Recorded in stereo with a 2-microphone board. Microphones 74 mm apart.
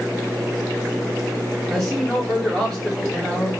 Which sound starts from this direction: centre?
A man speaking, at 1.7 s.